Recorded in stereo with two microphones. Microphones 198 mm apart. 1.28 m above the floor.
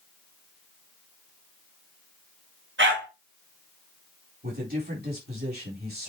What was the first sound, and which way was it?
A dog barking, 75° right (ahead or behind).